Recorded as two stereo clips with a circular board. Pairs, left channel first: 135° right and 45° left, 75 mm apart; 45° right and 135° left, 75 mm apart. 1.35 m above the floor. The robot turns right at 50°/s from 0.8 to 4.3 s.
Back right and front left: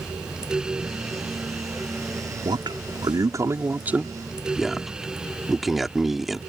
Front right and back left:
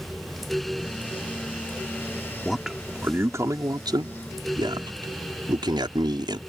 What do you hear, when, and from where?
2.5 s a man speaking: 40° left; by 6.4 s 130° left